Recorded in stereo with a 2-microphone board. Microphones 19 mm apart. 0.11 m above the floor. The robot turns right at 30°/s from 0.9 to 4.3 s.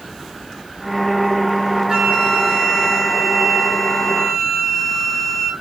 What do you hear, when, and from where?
1.9 s a flute: 50° right, 1.0 m; by 5.5 s 20° left, 1.0 m